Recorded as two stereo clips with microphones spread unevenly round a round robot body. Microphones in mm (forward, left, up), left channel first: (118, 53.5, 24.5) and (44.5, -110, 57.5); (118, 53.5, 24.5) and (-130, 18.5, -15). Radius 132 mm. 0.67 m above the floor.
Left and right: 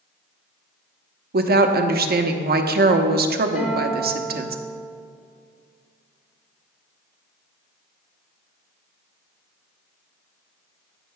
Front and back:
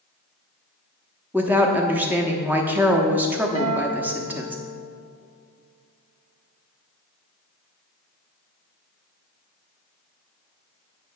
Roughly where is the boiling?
No boiling in this recording.